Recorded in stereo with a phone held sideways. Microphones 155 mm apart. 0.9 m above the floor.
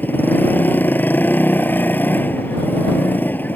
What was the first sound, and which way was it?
A motorcycle, 10° left (ahead or behind).